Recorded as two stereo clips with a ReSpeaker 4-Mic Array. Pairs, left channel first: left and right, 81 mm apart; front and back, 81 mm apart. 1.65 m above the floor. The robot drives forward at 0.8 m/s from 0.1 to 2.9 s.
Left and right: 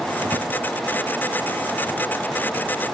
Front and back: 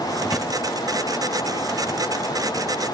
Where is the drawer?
85° right, 1.9 m; by 0.5 s 95° right, 1.9 m.